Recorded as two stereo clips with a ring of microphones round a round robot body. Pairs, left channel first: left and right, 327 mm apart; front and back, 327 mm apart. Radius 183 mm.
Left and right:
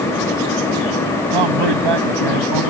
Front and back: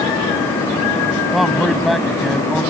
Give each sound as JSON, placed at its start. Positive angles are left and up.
{"t": 1.3, "sound": "a man speaking", "azimuth_deg": -90}